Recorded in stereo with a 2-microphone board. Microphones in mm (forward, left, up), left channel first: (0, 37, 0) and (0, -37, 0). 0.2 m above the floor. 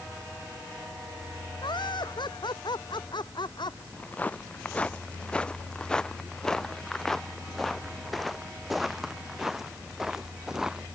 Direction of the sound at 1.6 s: 85° left.